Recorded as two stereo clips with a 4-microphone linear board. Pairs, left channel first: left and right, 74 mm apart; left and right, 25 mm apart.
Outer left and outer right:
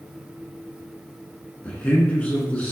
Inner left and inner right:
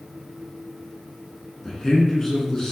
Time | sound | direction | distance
1.6 | a man speaking | 20° left (ahead or behind) | 1.2 m